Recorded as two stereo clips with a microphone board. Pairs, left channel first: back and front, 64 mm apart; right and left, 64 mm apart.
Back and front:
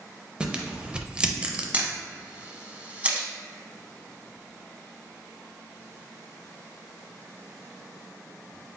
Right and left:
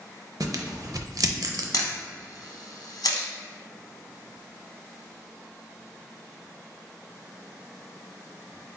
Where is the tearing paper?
75° left, 0.5 m.